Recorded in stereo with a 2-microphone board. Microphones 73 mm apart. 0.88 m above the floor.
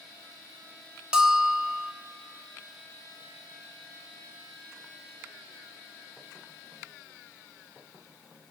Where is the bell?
10° right (ahead or behind), 1.1 m.